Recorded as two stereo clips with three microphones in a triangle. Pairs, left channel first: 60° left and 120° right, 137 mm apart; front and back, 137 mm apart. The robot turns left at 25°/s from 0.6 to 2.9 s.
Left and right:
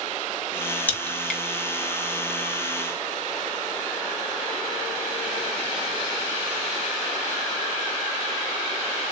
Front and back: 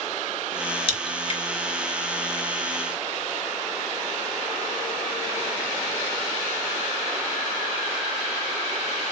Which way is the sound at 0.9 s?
15° right.